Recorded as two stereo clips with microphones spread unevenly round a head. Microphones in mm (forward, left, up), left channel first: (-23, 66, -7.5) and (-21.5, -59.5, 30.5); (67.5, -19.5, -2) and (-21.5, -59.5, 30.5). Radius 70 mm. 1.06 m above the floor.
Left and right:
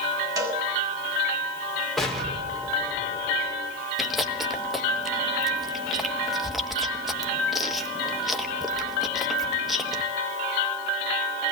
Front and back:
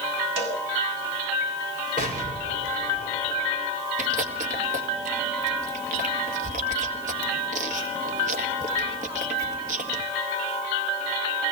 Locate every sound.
0.4 s a cowbell: 155° right, 8 m
2.0 s an explosion: 175° left, 4 m
4.0 s chewing: 175° left, 2 m